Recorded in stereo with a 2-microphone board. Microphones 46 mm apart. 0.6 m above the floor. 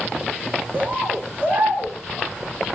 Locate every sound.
0.7 s a bird: 40° right (ahead or behind), 3.5 m